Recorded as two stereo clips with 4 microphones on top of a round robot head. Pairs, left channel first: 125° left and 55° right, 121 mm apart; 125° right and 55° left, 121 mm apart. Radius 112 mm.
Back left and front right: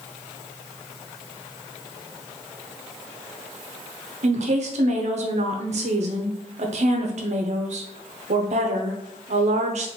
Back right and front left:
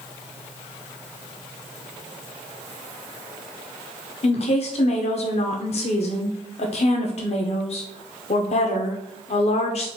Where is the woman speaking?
90° right, 0.5 m.